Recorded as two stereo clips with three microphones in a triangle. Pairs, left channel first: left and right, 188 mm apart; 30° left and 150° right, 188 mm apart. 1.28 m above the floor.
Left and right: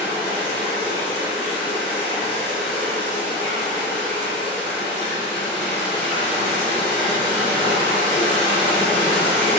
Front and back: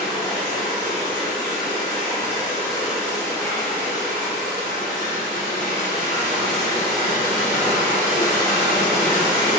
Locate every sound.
0.0 s running water: 165° left, 1.8 m